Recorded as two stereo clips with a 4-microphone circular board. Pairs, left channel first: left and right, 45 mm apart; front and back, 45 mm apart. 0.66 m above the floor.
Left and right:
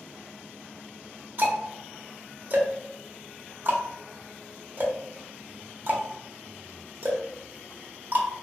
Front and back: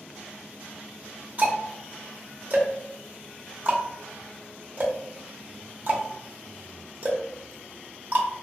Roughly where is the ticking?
Behind right.